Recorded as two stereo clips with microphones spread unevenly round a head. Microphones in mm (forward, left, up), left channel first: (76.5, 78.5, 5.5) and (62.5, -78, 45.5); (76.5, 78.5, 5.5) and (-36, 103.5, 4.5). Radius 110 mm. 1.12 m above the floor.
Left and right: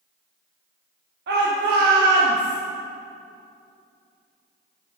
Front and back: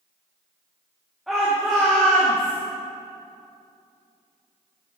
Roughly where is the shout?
Right.